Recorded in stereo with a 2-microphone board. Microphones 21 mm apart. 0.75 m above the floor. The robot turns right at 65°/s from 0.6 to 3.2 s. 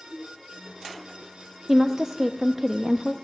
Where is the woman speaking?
120° right, 0.5 m; by 3.1 s 25° right, 0.5 m.